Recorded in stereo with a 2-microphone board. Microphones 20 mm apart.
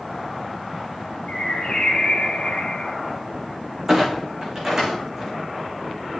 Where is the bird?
60° left (ahead or behind), 2.5 m.